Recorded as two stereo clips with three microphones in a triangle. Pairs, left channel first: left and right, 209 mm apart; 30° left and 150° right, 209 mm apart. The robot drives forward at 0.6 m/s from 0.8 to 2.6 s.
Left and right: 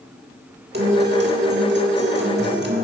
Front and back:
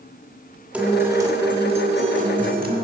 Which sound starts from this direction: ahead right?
A guitar, at 0.7 s.